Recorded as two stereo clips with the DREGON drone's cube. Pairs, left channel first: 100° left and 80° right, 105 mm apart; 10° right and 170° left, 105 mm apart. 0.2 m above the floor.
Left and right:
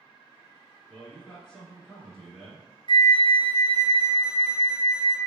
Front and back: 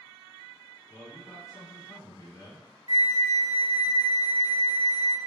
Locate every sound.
0.9 s a man speaking: 15° left, 1.7 m
2.9 s a flute: 120° left, 0.7 m